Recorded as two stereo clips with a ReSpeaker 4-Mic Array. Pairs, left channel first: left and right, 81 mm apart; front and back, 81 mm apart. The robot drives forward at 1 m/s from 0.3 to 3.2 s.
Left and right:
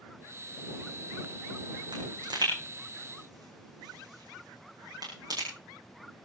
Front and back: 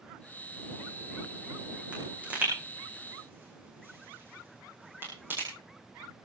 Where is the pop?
105° right, 6 m; by 5.5 s 120° right, 6.5 m.